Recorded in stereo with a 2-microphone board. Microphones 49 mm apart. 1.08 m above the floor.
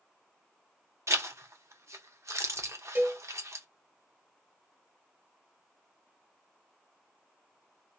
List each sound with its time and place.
1.1 s a zipper: 80° right, 0.5 m
3.0 s a cowbell: 45° right (ahead or behind), 1.3 m